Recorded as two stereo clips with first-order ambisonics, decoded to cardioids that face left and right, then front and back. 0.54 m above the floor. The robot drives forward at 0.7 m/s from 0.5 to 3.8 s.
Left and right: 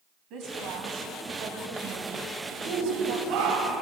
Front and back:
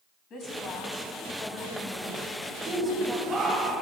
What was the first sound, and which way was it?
A woman speaking, 50° right.